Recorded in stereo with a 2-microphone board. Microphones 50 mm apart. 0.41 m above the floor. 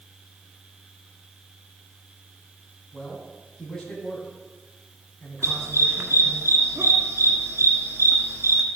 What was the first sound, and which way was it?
A man speaking, 10° left (ahead or behind).